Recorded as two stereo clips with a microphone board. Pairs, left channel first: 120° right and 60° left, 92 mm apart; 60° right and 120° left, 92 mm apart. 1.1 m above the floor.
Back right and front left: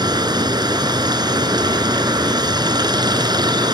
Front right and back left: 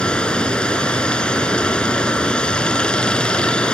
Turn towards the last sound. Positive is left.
turn(degrees=20)